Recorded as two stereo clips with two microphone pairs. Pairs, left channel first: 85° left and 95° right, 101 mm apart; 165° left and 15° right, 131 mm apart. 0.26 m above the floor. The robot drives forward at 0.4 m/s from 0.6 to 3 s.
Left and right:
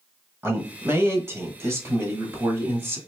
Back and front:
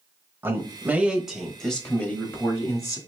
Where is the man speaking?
70° right, 1.1 m; by 3.0 s 145° right, 1.3 m.